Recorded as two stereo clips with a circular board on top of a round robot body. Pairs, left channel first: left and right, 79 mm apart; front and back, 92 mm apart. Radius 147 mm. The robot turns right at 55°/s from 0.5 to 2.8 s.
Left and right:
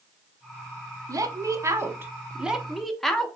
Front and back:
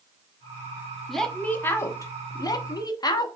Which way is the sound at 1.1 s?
90° right.